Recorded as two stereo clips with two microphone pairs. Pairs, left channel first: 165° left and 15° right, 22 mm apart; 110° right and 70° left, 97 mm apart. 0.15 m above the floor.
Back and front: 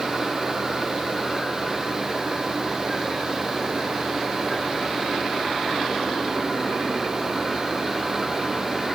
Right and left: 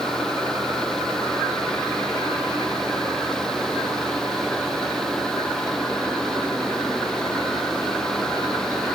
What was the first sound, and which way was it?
Only background noise.